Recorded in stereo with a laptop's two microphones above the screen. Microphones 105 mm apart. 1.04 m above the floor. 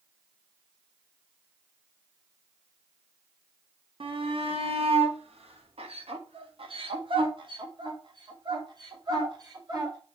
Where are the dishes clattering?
No dishes clattering in this recording.